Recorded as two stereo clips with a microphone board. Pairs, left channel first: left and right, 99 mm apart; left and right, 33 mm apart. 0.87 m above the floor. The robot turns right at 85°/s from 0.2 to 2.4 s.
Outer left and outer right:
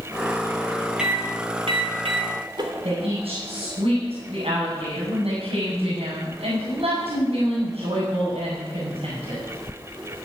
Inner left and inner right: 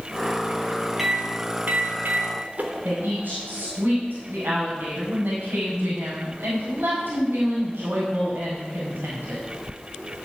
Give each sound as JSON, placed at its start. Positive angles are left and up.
{"t": 1.0, "sound": "a microwave", "side_deg": -5, "distance_m": 3.0}
{"t": 2.8, "sound": "a woman speaking", "side_deg": -75, "distance_m": 6.5}